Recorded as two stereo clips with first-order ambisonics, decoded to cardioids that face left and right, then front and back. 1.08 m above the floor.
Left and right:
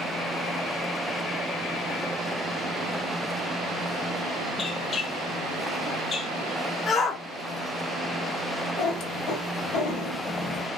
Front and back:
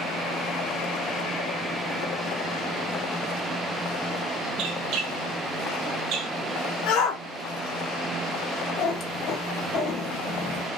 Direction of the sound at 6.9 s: 20° left.